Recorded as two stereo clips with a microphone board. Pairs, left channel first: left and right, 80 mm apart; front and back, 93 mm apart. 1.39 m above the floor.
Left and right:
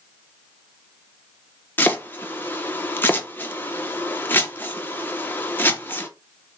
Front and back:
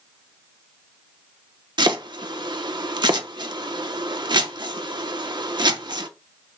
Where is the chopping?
150° left, 0.7 m.